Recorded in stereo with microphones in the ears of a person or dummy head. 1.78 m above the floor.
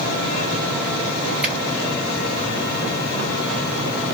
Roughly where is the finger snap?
Centre.